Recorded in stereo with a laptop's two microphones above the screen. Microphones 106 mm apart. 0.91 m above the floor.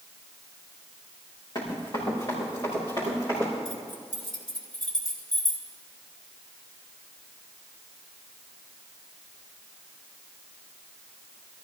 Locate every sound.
1.6 s running footsteps: 40° left (ahead or behind), 4.5 m; by 3.5 s 30° left (ahead or behind), 7 m
3.6 s keys jangling: 50° left (ahead or behind), 2.5 m